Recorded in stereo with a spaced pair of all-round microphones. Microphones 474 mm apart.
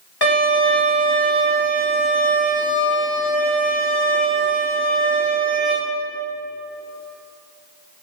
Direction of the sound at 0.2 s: 50° left (ahead or behind).